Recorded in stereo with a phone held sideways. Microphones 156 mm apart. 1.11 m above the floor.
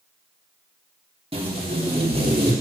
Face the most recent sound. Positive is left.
turn(degrees=-40)  # may be behind; listen again after turning